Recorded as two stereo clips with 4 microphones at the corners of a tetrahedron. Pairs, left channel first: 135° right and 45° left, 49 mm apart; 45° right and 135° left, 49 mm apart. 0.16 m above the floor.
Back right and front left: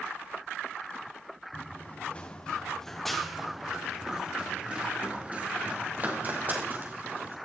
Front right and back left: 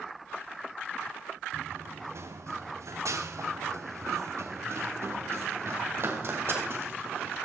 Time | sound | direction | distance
1.5 | running footsteps | 170° left | 1.9 m